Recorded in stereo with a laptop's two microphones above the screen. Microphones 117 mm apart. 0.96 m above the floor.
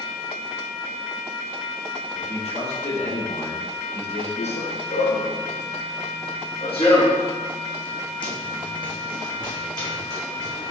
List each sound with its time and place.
2.1 s a man speaking: 70° left (ahead or behind), 3 m
4.4 s running footsteps: 70° left (ahead or behind), 2.5 m; by 10.7 s 35° left (ahead or behind), 4.5 m